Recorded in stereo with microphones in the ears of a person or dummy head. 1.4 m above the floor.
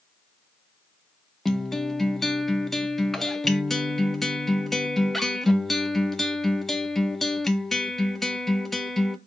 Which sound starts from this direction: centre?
A guitar, at 1.4 s.